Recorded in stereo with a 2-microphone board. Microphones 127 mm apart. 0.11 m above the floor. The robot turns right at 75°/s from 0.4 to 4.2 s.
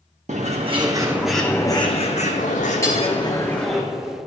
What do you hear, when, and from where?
0.3 s a bird: 70° right, 1.1 m; by 3.8 s 170° right, 1.1 m
2.8 s hammering: 25° left (ahead or behind), 1.9 m; by 3.0 s 15° left (ahead or behind), 1.9 m